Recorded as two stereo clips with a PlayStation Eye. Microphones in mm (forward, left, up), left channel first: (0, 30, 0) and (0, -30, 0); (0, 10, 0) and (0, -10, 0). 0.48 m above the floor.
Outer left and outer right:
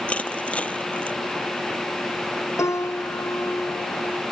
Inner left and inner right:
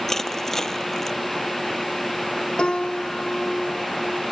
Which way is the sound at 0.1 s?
20° left (ahead or behind).